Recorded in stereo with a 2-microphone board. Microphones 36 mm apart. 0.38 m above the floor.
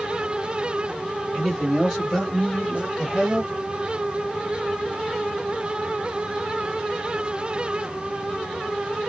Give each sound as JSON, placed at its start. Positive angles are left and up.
{"t": 1.3, "sound": "a man speaking", "side_deg": 0, "distance_m": 1.9}